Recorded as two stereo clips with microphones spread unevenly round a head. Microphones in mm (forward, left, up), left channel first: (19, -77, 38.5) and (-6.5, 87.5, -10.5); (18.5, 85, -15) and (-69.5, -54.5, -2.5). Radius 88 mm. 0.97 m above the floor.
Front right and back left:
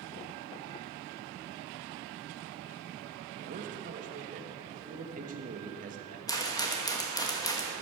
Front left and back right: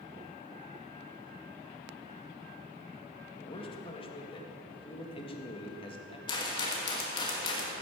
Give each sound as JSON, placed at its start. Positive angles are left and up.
{"t": 3.4, "sound": "a man speaking", "azimuth_deg": 110, "distance_m": 1.6}
{"t": 6.3, "sound": "a rattle", "azimuth_deg": -5, "distance_m": 1.6}